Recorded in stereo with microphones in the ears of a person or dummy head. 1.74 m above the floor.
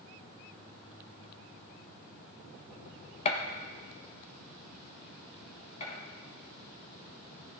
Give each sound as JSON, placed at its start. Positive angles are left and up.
{"t": 3.2, "sound": "a gunshot", "side_deg": 30, "distance_m": 1.3}
{"t": 5.8, "sound": "a gunshot", "side_deg": 30, "distance_m": 3.5}